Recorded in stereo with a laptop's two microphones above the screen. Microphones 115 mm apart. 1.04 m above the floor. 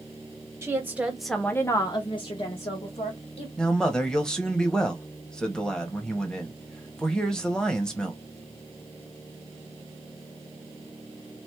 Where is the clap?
I don't hear a clap.